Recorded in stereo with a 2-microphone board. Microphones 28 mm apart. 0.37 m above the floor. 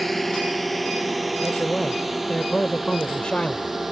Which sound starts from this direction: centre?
A drone, at 0.0 s.